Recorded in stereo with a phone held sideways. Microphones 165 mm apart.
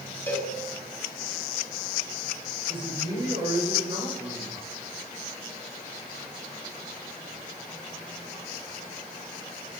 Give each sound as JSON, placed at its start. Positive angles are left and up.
{"t": 0.3, "sound": "a cowbell", "side_deg": 10, "distance_m": 4.5}
{"t": 2.7, "sound": "a man speaking", "side_deg": -30, "distance_m": 8.0}